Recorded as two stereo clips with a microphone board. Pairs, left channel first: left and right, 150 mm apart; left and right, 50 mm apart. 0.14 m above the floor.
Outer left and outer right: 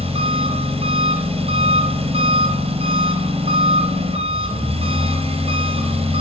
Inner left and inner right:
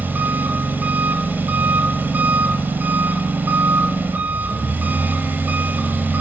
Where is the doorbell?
No doorbell in this recording.